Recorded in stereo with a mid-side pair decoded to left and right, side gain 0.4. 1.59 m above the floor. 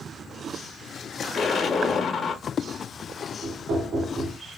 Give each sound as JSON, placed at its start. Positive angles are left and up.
{"t": 1.3, "sound": "an explosion", "azimuth_deg": 60, "distance_m": 1.4}
{"t": 3.4, "sound": "knocking", "azimuth_deg": -65, "distance_m": 3.0}